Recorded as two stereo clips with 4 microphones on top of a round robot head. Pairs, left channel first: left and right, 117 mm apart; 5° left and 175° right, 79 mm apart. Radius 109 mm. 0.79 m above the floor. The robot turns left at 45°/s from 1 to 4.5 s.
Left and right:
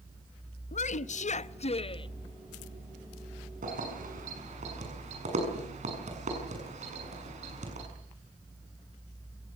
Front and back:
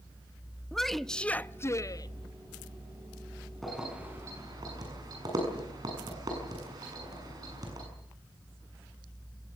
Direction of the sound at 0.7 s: 90° left.